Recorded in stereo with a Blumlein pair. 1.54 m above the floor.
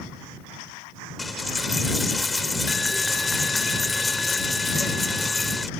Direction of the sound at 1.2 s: 10° left.